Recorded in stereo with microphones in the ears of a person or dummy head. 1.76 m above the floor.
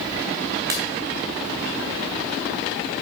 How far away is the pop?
About 1.5 m.